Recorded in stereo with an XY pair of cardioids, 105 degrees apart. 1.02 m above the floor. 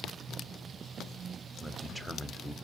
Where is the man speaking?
10° right, 0.9 m.